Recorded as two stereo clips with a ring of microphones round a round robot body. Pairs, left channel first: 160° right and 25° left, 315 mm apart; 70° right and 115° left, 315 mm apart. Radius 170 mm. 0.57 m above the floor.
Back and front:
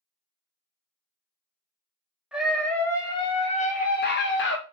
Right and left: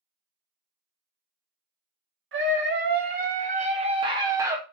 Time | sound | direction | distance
2.3 | a scream | 105° left | 1.5 m